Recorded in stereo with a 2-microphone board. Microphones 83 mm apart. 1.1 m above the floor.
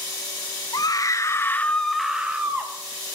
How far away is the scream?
About 0.7 m.